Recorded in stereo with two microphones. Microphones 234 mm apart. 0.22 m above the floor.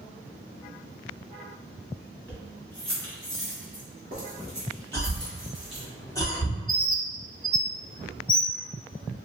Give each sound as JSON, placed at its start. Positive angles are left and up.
{"t": 2.3, "sound": "keys jangling", "side_deg": -10, "distance_m": 1.6}
{"t": 4.9, "sound": "a cough", "side_deg": 15, "distance_m": 1.4}
{"t": 6.7, "sound": "a bird", "side_deg": 20, "distance_m": 0.5}